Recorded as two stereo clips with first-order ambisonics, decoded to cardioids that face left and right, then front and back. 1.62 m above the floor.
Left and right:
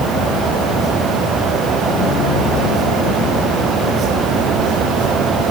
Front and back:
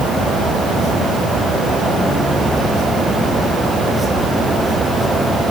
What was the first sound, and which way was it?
Only background noise.